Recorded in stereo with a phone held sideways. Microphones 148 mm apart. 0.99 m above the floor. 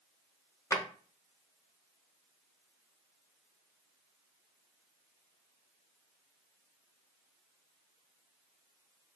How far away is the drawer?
About 0.7 m.